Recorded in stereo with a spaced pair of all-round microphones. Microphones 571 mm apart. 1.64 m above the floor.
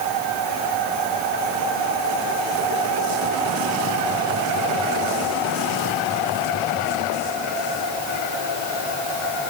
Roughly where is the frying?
No frying in this recording.